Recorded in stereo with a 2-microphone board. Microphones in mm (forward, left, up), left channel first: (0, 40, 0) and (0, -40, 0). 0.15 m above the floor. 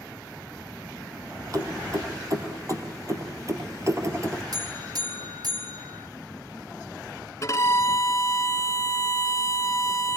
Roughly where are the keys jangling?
Right.